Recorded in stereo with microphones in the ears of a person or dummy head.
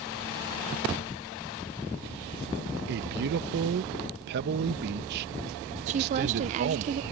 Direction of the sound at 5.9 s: 35° right (ahead or behind).